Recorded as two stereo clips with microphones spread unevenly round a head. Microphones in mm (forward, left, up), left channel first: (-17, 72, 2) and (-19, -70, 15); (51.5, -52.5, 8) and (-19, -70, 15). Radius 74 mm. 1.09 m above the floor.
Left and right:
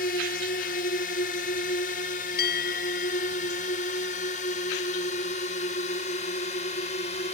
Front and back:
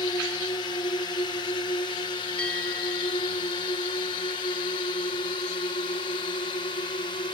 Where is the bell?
100° left.